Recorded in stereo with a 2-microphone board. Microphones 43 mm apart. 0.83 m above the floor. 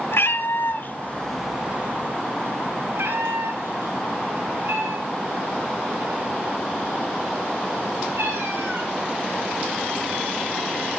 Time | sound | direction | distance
0.1 | a cat meowing | 70° left (ahead or behind) | 1.3 m